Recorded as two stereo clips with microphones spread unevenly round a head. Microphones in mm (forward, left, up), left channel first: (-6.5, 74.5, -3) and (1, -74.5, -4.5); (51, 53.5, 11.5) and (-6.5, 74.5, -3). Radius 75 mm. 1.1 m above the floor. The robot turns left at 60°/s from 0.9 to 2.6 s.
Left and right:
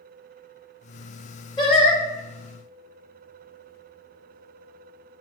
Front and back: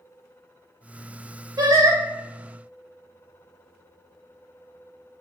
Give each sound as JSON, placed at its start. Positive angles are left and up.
{"t": 1.6, "sound": "singing", "azimuth_deg": 160, "distance_m": 0.9}